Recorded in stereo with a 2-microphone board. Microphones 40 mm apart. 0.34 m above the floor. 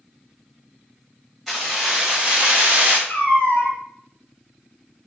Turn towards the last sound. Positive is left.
turn(degrees=50)  # may be behind; listen again after turning